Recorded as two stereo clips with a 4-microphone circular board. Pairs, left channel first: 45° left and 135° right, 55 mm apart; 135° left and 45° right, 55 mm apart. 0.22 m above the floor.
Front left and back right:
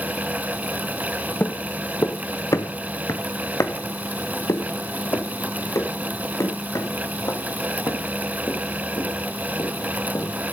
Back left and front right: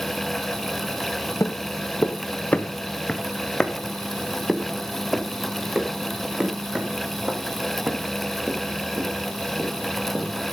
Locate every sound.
1.4 s footsteps: 100° left, 1.5 m; by 10.5 s 15° left, 6 m